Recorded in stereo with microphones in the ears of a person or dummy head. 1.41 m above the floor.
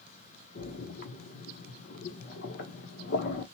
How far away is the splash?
About 0.7 m.